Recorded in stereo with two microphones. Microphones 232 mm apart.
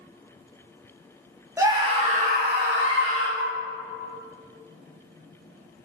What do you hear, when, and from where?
1.6 s a scream: 15° right (ahead or behind), 1.9 m; by 3.3 s 60° right (ahead or behind), 2.5 m
3.4 s a flute: 55° right (ahead or behind), 0.5 m